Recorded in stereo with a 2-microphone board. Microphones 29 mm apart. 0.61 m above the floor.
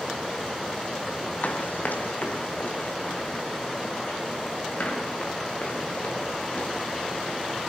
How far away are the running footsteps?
About 1.5 m.